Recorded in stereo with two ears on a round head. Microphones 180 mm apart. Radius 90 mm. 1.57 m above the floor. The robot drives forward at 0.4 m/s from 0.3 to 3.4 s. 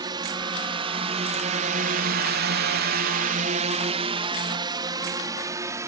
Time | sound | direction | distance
0.0 | a drone | 20° right (ahead or behind) | ?